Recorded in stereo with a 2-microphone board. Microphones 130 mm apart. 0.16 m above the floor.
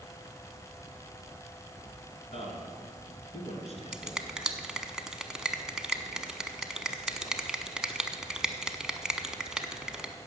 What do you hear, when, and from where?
2.3 s a man speaking: 50° left (ahead or behind), 2.5 m
3.9 s a finger snap: 5° right (ahead or behind), 0.8 m